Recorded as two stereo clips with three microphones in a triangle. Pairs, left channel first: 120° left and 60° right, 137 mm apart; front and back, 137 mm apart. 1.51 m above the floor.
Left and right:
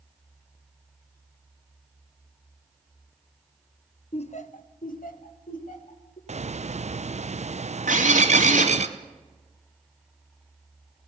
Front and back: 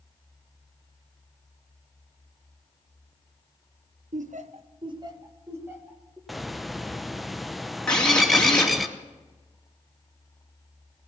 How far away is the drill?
About 4 m.